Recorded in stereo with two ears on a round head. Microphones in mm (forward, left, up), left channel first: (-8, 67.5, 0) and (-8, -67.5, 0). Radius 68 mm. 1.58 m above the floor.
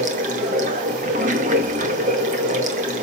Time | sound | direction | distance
0.0 | running water | 50° right (ahead or behind) | 1.9 m